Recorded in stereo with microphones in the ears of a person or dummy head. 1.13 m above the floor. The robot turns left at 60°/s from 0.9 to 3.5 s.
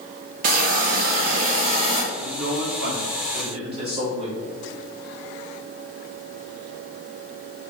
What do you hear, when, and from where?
0.4 s a hiss: 80° right, 0.8 m; by 2.0 s 150° right, 0.8 m
2.1 s a man speaking: 60° right, 1.4 m; by 4.4 s 145° right, 1.4 m